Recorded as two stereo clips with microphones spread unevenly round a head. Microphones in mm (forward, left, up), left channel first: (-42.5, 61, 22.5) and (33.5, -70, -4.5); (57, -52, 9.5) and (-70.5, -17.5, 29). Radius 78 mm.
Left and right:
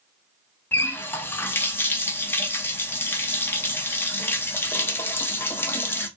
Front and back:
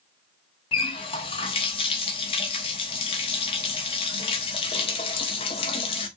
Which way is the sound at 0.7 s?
45° left.